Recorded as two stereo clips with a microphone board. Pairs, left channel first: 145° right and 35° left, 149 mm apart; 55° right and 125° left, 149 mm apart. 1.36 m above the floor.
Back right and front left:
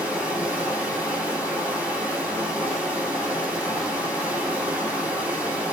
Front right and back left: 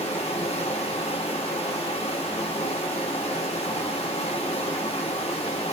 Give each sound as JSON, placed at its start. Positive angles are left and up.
{"t": 0.0, "sound": "running water", "azimuth_deg": -40, "distance_m": 1.2}